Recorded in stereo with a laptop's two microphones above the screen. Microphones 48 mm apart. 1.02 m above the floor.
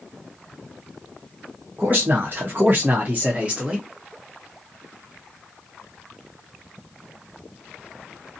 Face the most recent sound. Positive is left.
turn(degrees=-15)  # may be behind; listen again after turning